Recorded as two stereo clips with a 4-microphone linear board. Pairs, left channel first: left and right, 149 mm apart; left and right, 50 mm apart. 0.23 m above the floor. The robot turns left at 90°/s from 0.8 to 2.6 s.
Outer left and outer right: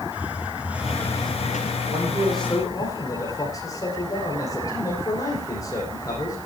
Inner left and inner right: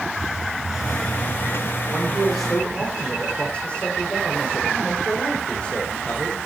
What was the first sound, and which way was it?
A hiss, 170° right.